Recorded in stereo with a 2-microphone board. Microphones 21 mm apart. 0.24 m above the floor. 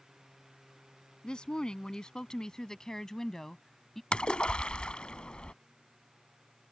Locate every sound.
1.2 s a woman speaking: 50° left (ahead or behind); by 4.0 s 15° left (ahead or behind)
4.1 s a splash: 60° left (ahead or behind)